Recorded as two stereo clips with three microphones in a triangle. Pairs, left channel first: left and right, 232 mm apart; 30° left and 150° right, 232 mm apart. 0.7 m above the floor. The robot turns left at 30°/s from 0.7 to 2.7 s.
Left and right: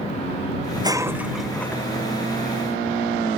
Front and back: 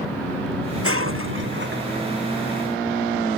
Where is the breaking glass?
160° right; by 1.8 s 170° left.